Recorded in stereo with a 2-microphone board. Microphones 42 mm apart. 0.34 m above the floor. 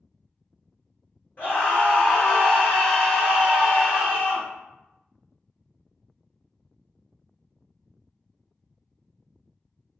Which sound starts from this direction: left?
A scream, at 1.4 s.